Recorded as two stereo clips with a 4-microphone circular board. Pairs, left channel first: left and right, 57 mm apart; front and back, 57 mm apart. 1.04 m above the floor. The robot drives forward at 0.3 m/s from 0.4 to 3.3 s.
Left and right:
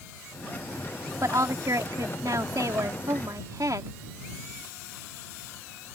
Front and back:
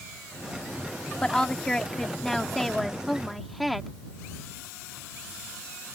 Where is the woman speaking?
75° right; by 3.9 s 90° right.